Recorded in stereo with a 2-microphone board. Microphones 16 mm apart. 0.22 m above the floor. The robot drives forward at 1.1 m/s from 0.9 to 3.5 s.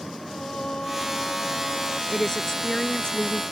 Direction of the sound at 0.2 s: 80° left.